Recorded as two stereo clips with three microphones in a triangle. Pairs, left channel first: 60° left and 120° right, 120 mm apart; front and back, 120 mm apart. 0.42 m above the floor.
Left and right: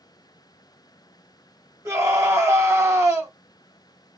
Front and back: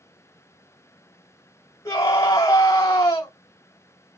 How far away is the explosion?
No explosion in this recording.